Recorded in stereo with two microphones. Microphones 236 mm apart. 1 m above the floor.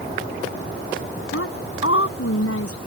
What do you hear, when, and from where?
1.3 s a woman speaking: 75° left (ahead or behind)